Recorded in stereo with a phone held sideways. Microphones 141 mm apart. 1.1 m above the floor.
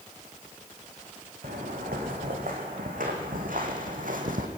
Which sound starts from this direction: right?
Footsteps, at 1.4 s.